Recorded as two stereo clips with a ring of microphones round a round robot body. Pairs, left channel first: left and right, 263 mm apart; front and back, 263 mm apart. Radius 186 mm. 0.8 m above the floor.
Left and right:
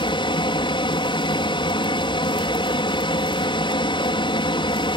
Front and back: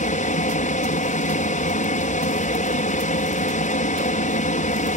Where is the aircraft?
35° left.